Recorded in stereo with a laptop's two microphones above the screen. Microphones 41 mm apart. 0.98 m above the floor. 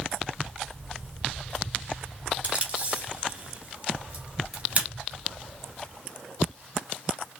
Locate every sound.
2.4 s tape being pulled: 40° right (ahead or behind), 2.5 m